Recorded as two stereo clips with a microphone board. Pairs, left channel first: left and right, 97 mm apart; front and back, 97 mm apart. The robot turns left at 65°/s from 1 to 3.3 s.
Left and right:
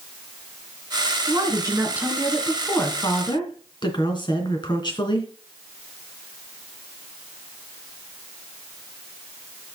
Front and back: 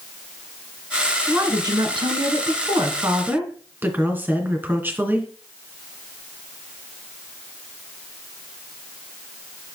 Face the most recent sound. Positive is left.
turn(degrees=115)